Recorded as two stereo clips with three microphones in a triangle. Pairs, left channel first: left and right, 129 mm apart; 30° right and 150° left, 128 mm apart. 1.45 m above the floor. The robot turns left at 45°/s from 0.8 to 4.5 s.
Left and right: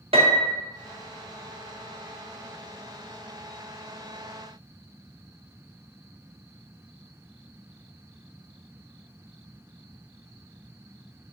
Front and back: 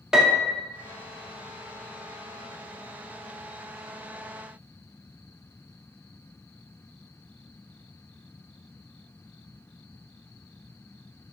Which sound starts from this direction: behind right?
A piano, at 0.1 s.